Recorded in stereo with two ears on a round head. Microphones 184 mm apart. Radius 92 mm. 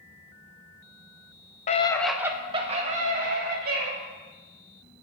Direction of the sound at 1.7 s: 35° left (ahead or behind).